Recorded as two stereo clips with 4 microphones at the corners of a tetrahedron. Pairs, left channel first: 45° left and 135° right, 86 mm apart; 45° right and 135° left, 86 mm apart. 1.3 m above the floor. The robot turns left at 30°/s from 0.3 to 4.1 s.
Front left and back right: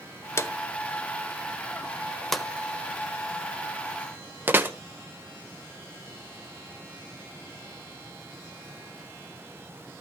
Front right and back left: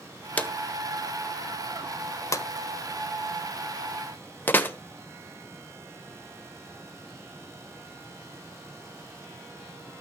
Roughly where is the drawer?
Ahead.